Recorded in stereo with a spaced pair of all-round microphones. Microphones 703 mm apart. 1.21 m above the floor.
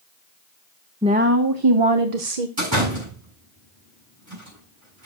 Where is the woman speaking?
5° right (ahead or behind), 0.8 m; by 2.5 s 65° right (ahead or behind), 1.0 m.